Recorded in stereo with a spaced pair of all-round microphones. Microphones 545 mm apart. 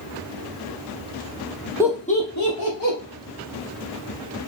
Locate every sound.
1.8 s laughter: 5° right (ahead or behind), 0.5 m; by 3.0 s 55° left (ahead or behind), 0.9 m